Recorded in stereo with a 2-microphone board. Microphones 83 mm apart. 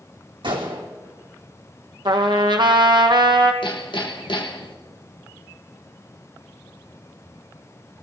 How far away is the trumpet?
About 1.2 m.